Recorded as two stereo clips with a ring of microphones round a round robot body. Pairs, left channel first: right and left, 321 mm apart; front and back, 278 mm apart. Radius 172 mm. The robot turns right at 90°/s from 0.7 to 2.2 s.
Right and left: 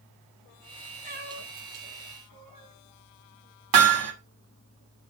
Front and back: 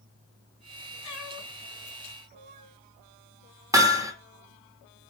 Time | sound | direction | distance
1.0 | a cat meowing | 20° left | 3.5 m
3.7 | hammering | 100° left | 2.5 m